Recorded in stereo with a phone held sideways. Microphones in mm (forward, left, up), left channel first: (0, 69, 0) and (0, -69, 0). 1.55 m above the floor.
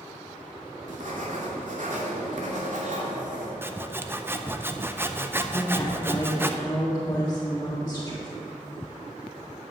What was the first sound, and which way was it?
Writing, 65° right (ahead or behind).